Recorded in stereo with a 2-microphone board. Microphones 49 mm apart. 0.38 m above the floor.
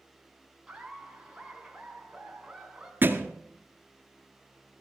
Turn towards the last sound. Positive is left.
turn(degrees=-45)  # may be behind; listen again after turning